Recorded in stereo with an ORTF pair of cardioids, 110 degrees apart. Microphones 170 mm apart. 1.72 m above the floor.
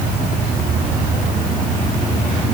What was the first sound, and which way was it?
Only background noise.